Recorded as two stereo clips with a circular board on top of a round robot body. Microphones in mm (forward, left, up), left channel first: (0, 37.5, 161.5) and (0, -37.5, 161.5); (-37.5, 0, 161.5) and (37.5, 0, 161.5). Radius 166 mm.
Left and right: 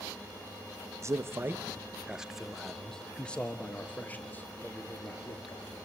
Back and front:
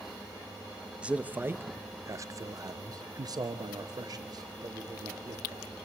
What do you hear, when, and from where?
1.0 s a man speaking: 70° right, 1.1 m; by 5.8 s 30° left, 2.5 m